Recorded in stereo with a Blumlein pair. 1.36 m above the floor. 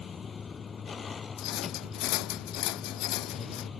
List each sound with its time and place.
0.0 s a vehicle: 20° left
1.4 s a rattle: 40° left